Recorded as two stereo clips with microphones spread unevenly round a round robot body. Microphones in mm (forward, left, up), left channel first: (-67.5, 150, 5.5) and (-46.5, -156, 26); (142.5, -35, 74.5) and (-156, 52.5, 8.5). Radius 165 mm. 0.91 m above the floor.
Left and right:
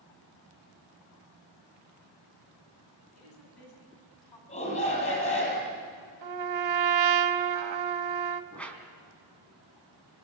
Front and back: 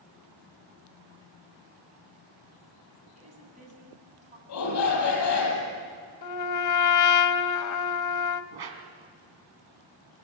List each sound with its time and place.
3.1 s a woman speaking: 95° left, 8 m
4.5 s a shout: 25° left, 8 m
6.2 s a trumpet: 55° right, 1.3 m
8.5 s a whoosh: straight behind, 3 m